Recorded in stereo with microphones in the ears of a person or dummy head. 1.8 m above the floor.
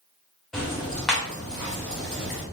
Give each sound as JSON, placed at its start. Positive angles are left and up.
{"t": 0.5, "sound": "ticking", "side_deg": 0, "distance_m": 0.8}